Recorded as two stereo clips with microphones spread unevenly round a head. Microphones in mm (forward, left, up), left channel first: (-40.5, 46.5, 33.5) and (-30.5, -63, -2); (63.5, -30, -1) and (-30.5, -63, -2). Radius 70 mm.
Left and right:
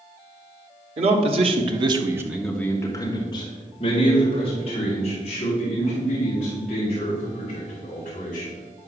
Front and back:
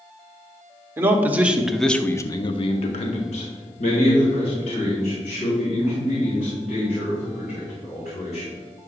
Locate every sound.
1.0 s a man speaking: 95° right, 1.4 m; by 8.6 s 55° left, 6 m